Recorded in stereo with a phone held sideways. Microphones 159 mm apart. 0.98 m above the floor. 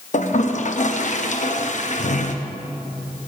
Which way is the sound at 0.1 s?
55° left (ahead or behind).